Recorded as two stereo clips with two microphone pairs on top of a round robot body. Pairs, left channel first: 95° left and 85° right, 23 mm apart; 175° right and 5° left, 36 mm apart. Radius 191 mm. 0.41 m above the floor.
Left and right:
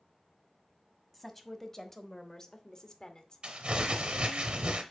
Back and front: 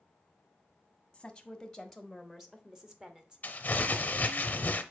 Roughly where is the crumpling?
Behind right.